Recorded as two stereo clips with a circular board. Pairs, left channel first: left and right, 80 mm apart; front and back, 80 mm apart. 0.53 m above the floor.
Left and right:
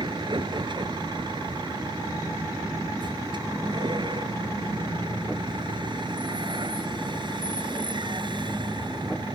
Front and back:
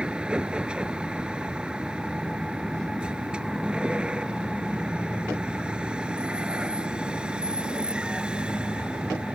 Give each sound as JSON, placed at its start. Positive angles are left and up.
{"t": 0.0, "sound": "a vehicle", "azimuth_deg": -105}